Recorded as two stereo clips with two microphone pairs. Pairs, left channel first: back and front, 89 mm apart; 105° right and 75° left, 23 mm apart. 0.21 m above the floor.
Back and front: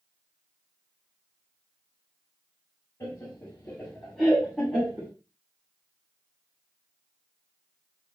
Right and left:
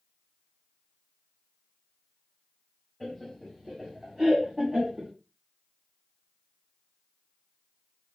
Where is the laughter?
175° left, 1.1 m; by 5.1 s 70° left, 1.4 m.